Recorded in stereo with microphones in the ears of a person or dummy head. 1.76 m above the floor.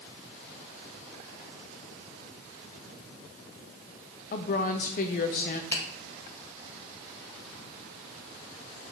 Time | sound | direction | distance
4.3 | a woman speaking | 40° left (ahead or behind) | 0.7 m
5.7 | a finger snap | 15° left (ahead or behind) | 2.0 m